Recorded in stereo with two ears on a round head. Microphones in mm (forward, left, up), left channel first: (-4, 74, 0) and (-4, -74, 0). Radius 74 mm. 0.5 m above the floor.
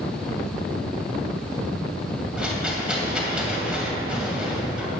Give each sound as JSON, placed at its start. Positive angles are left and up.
{"t": 2.4, "sound": "a rattle", "side_deg": -5, "distance_m": 2.5}